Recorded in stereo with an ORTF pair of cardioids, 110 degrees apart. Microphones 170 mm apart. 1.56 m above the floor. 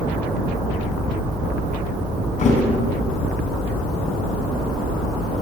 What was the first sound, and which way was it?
A thud, 50° left.